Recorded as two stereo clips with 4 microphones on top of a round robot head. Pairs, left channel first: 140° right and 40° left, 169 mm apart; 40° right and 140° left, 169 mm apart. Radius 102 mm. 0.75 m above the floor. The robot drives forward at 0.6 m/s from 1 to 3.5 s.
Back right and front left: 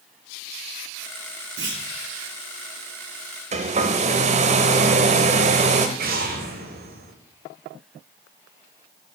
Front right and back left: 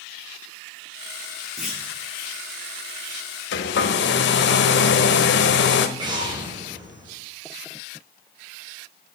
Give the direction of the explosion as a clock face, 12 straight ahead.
10 o'clock.